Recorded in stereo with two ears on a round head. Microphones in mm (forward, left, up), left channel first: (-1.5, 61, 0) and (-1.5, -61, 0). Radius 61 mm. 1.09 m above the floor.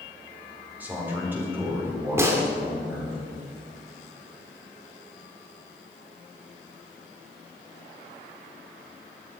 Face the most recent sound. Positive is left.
turn(degrees=-20)  # may be behind; listen again after turning